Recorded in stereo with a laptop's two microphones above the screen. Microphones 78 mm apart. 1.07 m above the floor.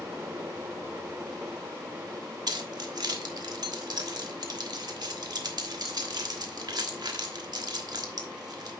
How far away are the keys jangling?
About 1.3 m.